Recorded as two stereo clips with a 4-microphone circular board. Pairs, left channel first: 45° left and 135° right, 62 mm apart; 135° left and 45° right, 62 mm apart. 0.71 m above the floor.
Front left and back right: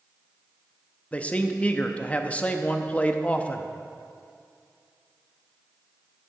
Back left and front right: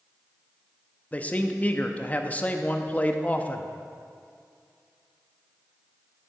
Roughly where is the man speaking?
Left.